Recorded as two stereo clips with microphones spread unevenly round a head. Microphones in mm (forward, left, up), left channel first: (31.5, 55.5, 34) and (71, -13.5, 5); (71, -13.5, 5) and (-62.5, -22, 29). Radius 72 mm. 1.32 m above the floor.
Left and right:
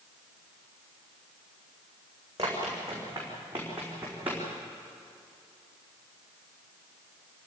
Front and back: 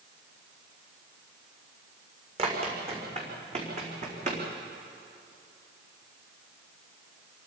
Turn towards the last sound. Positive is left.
turn(degrees=-145)